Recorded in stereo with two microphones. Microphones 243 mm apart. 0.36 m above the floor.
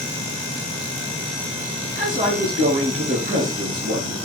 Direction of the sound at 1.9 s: 35° right (ahead or behind).